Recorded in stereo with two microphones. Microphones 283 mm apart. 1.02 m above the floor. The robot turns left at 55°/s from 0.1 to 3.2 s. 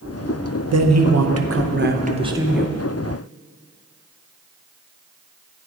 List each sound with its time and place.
0.7 s a man speaking: 75° right, 0.6 m; by 2.8 s 170° left, 0.6 m